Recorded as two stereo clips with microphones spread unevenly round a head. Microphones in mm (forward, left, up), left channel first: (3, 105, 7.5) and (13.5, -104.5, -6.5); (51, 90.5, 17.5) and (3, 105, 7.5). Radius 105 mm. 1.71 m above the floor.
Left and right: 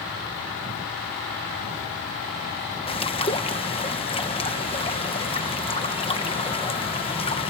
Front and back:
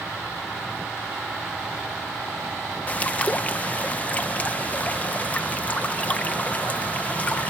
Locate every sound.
2.9 s a bird: 35° left